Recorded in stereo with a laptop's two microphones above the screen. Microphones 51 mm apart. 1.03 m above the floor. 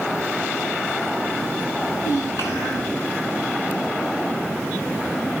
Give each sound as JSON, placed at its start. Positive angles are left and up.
{"t": 1.8, "sound": "a child speaking", "side_deg": 90, "distance_m": 9.0}